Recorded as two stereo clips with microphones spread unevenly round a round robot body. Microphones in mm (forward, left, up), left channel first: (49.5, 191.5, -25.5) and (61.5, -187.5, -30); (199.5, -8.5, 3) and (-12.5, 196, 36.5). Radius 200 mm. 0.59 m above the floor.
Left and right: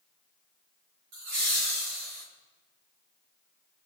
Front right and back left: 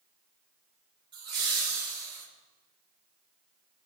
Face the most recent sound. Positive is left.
turn(degrees=-140)